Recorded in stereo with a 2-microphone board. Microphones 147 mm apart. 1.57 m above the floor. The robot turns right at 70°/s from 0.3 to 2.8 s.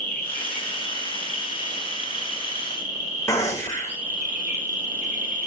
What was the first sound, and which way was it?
An insect, 105° left.